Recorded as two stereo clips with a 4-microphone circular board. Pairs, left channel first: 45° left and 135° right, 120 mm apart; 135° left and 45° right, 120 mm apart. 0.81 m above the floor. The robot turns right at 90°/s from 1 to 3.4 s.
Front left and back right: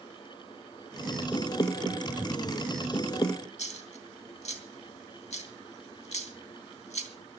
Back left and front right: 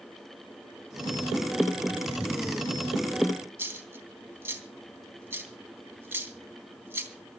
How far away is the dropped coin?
About 3 m.